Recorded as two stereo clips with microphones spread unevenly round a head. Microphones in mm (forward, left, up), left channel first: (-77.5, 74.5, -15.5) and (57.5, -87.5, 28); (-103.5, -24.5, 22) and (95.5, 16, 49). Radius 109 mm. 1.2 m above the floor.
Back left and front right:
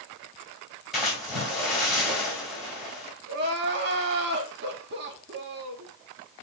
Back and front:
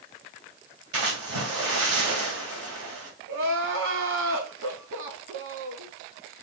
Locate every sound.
0.9 s a splash: 35° left, 3 m
3.3 s crying: 15° right, 1.2 m